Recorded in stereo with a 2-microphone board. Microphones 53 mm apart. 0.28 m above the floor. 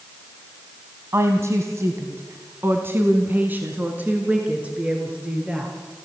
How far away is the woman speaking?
About 1.8 m.